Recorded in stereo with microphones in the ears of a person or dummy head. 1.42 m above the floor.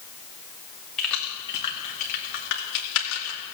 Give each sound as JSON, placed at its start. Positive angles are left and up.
{"t": 1.0, "sound": "keys jangling", "side_deg": -5, "distance_m": 2.0}